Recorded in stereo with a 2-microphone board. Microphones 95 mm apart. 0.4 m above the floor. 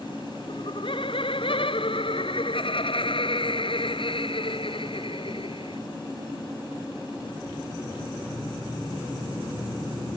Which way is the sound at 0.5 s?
80° left.